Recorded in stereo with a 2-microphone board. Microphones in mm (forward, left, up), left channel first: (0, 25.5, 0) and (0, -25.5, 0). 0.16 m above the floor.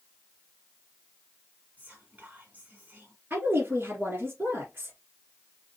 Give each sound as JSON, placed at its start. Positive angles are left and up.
{"t": 1.8, "sound": "whispering", "side_deg": -30, "distance_m": 1.9}
{"t": 3.3, "sound": "a woman speaking", "side_deg": -40, "distance_m": 2.5}